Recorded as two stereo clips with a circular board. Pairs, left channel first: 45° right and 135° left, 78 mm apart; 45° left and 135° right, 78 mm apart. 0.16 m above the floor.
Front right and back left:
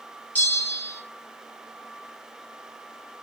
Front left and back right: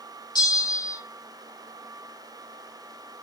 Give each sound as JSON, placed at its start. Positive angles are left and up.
{"t": 0.3, "sound": "a bell", "azimuth_deg": 20, "distance_m": 6.0}